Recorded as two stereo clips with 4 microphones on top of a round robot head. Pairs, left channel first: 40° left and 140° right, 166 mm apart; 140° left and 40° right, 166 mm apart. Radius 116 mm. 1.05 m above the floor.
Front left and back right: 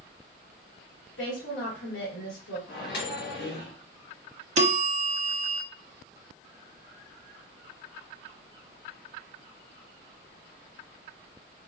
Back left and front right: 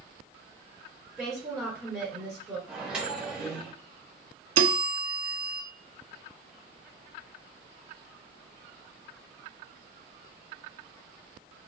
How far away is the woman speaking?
About 2 m.